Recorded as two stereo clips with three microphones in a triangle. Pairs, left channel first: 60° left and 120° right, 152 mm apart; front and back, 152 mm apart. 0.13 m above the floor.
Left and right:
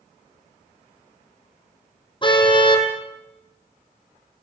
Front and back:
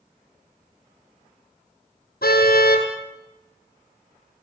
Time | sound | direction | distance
2.2 | a car horn | straight ahead | 3.5 m